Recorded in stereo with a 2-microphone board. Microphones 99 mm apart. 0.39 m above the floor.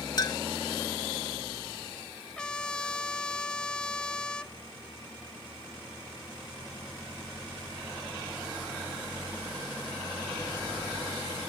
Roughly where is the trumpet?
Centre.